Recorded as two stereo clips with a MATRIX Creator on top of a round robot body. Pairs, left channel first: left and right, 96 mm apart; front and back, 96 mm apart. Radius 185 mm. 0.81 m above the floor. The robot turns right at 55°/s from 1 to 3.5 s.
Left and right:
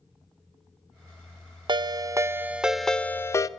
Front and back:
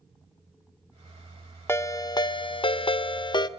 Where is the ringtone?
60° right, 0.6 m; by 3.5 s 40° left, 0.6 m.